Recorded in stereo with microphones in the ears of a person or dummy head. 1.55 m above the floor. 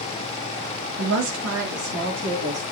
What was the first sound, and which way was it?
A woman speaking, 70° right (ahead or behind).